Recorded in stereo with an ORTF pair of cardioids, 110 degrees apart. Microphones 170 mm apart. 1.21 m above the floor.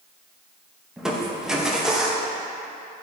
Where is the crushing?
5° right, 1.1 m.